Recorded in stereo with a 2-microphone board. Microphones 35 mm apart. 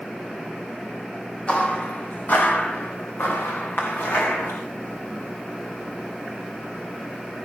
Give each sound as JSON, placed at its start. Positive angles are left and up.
{"t": 1.5, "sound": "footsteps", "side_deg": 40, "distance_m": 2.0}